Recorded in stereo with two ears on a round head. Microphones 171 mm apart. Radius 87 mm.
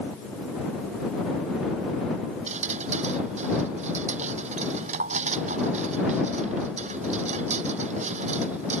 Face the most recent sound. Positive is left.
turn(degrees=-35)  # may be behind; listen again after turning